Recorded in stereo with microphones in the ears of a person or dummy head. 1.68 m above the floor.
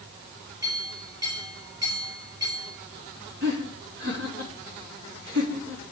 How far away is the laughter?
About 3 m.